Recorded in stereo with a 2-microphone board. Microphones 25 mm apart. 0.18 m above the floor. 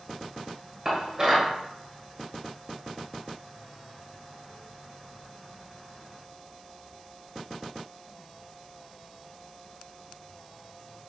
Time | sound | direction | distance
0.8 | dishes clattering | 30° right (ahead or behind) | 1.7 m